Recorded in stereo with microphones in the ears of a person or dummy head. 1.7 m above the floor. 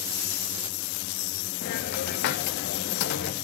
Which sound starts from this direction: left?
A hiss, at 1.6 s.